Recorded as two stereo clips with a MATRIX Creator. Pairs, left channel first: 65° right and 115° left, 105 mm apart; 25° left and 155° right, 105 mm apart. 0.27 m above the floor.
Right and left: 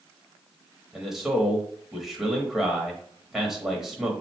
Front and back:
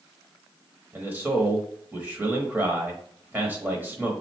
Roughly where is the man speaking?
Behind.